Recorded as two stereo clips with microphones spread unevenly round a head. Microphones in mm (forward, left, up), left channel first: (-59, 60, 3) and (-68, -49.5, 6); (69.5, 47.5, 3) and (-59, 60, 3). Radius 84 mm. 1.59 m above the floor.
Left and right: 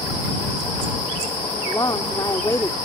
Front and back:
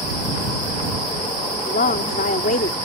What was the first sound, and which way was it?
A woman speaking, 10° left.